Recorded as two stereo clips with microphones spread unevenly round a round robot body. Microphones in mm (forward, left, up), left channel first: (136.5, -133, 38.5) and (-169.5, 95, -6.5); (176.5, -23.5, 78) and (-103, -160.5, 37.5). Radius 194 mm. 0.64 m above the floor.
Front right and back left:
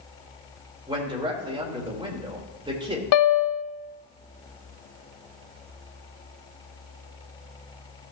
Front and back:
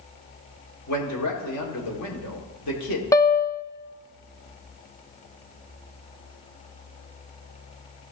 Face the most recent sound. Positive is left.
turn(degrees=-60)